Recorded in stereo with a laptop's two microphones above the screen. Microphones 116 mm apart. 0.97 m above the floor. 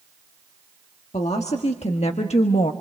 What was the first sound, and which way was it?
A woman speaking, 70° left (ahead or behind).